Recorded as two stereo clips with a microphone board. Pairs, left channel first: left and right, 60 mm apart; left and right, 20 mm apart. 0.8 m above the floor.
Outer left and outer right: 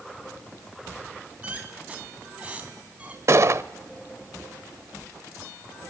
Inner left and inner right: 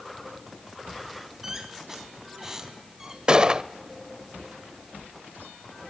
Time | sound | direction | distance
1.4 | a squeak | 20° right (ahead or behind) | 3.5 m
3.3 | a gunshot | 50° right (ahead or behind) | 0.8 m